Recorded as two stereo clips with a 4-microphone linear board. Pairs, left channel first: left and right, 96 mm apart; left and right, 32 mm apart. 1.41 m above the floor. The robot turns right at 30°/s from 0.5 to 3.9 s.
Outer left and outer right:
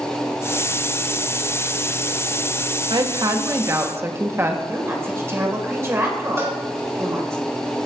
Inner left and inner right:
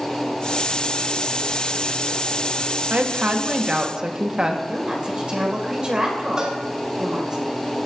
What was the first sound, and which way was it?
A woman speaking, 55° right.